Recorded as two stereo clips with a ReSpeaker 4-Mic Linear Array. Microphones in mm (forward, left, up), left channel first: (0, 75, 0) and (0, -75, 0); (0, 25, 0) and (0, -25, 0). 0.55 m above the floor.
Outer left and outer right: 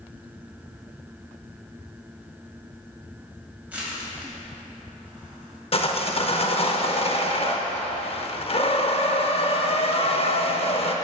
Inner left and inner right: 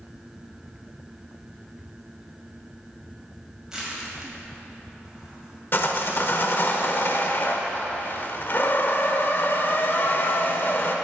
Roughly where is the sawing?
Left.